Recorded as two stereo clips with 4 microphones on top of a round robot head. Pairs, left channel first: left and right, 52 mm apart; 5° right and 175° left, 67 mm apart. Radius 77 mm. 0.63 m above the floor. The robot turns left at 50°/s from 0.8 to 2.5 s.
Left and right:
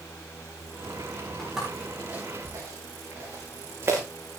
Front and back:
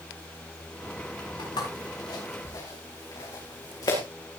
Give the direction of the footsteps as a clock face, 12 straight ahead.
12 o'clock.